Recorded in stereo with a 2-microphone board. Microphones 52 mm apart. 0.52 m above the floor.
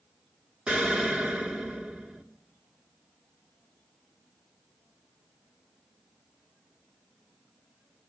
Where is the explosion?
15° right (ahead or behind), 1.3 m.